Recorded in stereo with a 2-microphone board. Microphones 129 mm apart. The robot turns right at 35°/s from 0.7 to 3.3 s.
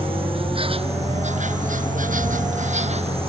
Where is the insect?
135° right; by 3.3 s 45° right.